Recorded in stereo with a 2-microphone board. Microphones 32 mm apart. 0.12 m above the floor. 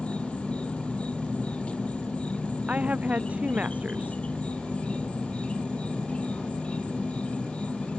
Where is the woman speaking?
50° right (ahead or behind).